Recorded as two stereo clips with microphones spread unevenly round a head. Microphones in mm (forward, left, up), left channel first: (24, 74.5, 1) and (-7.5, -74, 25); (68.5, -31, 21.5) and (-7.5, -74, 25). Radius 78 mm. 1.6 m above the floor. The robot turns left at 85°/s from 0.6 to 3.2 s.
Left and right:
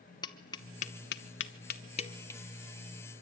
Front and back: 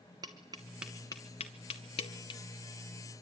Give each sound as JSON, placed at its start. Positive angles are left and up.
{"t": 0.2, "sound": "tapping", "azimuth_deg": 145, "distance_m": 1.0}